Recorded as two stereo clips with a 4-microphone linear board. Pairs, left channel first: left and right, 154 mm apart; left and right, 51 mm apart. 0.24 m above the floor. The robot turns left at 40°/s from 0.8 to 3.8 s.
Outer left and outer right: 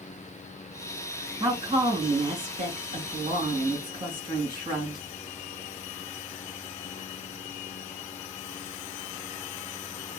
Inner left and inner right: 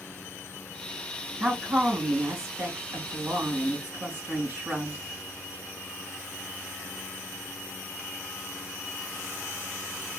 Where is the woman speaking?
45° right, 2.5 m; by 5.0 s 140° right, 2.5 m.